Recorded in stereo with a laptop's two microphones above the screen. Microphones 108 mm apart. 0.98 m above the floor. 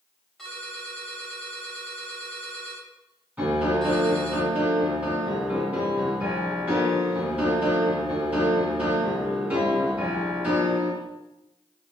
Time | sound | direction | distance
0.4 | a ringtone | 5° left (ahead or behind) | 3.5 m
3.4 | a piano | 15° right (ahead or behind) | 3 m